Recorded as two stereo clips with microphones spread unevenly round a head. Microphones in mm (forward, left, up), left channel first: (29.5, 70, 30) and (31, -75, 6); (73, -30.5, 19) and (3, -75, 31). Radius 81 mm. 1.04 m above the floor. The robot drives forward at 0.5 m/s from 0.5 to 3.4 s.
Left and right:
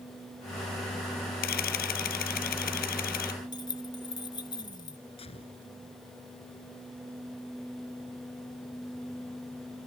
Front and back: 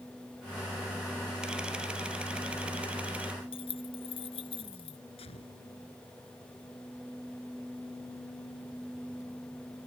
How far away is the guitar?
No guitar in this recording.